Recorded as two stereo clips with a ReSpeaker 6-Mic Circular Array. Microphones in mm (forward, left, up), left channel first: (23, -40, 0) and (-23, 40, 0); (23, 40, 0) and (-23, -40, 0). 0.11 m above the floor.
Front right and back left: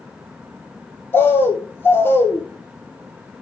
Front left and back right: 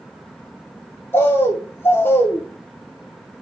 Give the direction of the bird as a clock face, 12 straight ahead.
12 o'clock.